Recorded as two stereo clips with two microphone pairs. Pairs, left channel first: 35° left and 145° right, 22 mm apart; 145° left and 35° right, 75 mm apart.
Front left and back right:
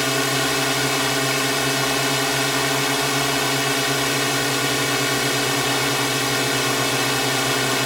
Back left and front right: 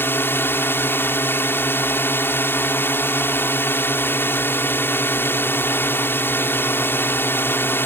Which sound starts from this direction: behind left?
A drone, at 0.0 s.